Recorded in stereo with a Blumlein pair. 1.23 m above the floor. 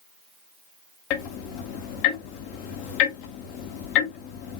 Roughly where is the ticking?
Ahead left.